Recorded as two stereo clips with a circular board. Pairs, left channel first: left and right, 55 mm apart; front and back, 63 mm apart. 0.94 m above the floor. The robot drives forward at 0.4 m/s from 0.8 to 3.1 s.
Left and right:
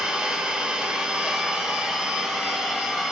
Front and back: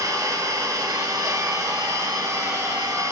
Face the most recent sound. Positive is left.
turn(degrees=-165)